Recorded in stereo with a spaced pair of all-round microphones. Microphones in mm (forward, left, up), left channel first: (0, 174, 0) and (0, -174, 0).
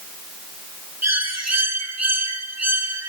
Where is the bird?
45° right (ahead or behind), 2 m.